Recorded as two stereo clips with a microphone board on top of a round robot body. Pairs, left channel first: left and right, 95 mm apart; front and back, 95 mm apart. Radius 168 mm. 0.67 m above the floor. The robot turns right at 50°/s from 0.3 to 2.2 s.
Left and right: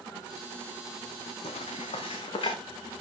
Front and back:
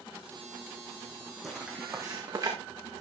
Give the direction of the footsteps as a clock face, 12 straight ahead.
9 o'clock.